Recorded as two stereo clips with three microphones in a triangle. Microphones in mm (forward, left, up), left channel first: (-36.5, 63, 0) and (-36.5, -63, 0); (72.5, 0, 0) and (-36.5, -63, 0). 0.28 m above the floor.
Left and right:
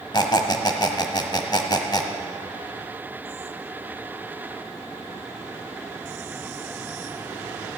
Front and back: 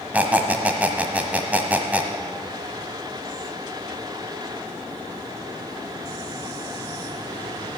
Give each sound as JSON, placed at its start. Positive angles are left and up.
{"t": 0.1, "sound": "a squeak", "azimuth_deg": 135, "distance_m": 1.2}